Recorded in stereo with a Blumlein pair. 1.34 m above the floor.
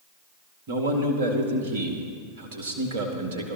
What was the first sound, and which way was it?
A man speaking, 55° right.